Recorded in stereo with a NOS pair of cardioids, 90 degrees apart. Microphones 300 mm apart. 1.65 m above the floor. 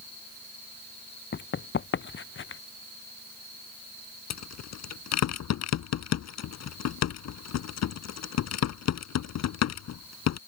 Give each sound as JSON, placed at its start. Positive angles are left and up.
{"t": 1.3, "sound": "running footsteps", "azimuth_deg": 40}
{"t": 4.3, "sound": "a rattle", "azimuth_deg": 70}